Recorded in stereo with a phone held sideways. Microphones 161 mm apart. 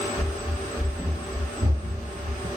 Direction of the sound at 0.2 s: 15° left (ahead or behind).